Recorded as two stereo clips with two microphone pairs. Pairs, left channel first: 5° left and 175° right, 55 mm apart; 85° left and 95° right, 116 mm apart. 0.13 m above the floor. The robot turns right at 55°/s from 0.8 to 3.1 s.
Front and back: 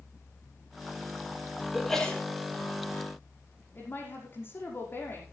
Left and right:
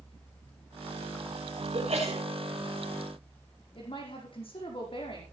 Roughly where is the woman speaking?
Ahead left.